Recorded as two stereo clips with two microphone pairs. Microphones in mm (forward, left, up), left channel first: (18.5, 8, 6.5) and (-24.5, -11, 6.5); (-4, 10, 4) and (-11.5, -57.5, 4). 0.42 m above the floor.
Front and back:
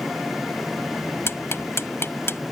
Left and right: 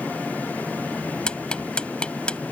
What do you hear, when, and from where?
1.3 s ticking: 10° left